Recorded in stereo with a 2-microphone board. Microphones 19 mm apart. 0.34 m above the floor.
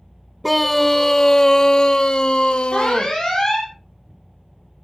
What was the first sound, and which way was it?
A scream, centre (ahead or behind).